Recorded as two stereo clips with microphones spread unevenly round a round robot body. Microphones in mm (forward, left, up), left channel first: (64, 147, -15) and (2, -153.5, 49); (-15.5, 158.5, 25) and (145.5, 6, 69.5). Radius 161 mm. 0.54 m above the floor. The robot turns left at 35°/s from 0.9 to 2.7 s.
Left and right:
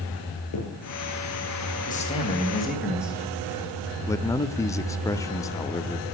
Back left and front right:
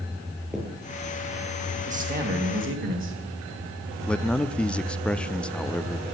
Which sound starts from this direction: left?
A man speaking, at 4.1 s.